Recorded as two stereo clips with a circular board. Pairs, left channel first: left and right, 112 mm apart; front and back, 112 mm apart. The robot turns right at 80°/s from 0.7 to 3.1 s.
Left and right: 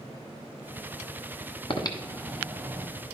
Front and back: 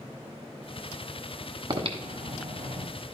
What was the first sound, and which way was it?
Breathing, 130° left.